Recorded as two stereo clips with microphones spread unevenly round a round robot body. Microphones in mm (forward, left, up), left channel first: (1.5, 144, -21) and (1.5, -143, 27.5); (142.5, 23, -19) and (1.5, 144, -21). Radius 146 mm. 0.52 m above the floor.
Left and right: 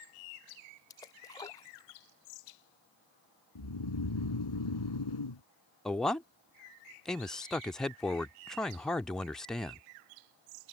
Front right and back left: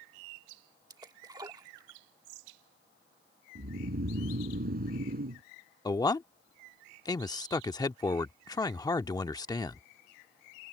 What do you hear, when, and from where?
0.9 s a splash: 115° left
3.5 s snoring: 100° left
5.8 s a man speaking: 15° left